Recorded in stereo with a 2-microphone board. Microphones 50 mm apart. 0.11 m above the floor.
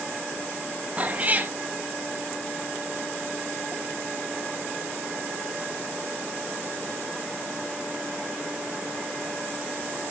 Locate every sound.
1.0 s a cat meowing: 25° right (ahead or behind), 0.9 m